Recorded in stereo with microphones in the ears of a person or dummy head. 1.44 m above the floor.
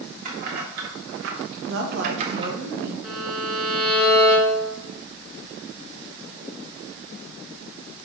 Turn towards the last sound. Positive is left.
turn(degrees=0)  # may be behind; listen again after turning